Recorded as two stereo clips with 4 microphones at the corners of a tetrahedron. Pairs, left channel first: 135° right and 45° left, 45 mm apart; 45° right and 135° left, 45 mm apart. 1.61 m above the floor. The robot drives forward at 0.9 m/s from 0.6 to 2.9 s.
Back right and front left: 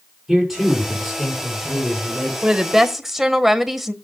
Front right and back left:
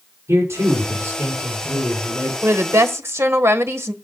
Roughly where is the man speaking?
Behind left.